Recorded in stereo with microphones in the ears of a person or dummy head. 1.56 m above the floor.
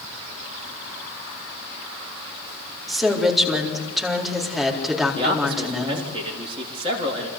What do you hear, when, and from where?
2.9 s a woman speaking: centre (ahead or behind), 4 m
5.2 s a man speaking: 25° right (ahead or behind), 3.5 m